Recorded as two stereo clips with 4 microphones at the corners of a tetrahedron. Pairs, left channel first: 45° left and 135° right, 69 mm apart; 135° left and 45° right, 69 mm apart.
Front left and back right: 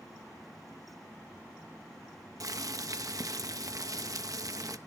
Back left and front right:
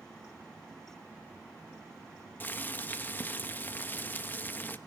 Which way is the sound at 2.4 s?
165° right.